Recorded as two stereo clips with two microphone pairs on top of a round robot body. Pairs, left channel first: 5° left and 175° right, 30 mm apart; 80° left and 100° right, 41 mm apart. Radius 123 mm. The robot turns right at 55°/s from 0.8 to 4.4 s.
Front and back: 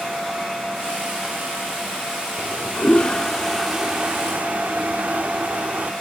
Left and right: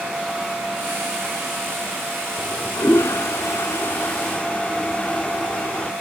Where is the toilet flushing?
35° left; by 5.9 s 145° left.